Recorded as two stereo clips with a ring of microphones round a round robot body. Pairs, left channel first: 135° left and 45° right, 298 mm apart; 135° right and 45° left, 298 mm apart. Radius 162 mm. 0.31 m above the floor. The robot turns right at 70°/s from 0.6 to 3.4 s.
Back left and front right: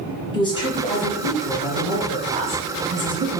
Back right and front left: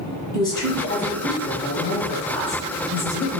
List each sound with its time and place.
0.3 s a woman speaking: 175° left, 1.2 m; by 3.4 s 10° left, 1.2 m